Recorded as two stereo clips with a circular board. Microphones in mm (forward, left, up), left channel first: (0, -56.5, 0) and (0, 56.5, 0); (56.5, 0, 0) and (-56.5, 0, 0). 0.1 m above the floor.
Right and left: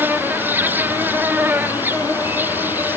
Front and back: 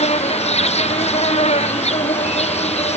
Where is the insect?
15° left.